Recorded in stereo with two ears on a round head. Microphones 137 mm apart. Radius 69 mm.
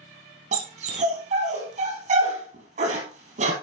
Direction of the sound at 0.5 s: 50° right (ahead or behind).